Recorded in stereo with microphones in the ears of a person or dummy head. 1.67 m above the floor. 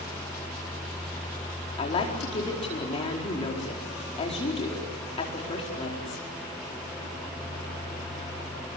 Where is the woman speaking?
30° left (ahead or behind), 4.5 m.